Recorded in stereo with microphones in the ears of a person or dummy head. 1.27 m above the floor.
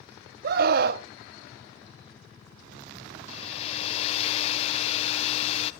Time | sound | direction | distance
0.4 | a scream | 50° right (ahead or behind) | 0.6 m
3.3 | a hair dryer | 35° left (ahead or behind) | 0.5 m